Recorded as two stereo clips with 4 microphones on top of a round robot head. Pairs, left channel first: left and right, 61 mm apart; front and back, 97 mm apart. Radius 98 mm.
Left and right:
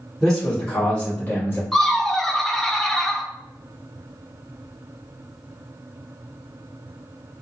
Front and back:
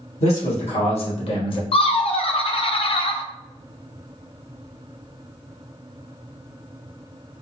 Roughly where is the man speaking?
Ahead.